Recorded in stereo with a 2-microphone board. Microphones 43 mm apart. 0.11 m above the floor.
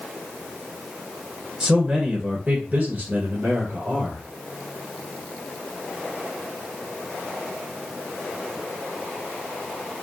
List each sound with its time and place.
1.6 s a man speaking: 10° right (ahead or behind), 1.6 m; by 4.2 s 50° right (ahead or behind), 1.9 m